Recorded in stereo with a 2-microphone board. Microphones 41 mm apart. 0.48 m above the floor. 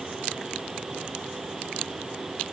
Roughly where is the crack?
I don't hear a crack.